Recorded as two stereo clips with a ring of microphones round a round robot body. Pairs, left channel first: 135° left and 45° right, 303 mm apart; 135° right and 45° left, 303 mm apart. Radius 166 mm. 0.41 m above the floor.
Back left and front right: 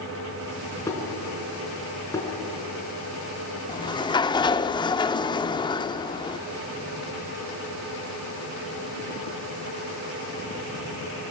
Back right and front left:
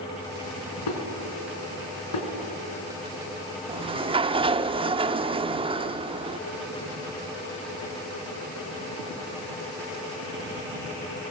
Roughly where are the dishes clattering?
Behind right.